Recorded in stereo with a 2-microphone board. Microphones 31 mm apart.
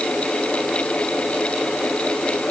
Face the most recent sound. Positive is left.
No sound to turn to.